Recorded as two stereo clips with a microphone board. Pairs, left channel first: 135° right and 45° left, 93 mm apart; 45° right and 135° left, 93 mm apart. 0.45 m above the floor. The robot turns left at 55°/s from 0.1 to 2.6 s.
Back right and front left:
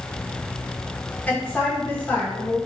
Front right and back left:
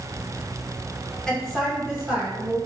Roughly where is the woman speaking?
Right.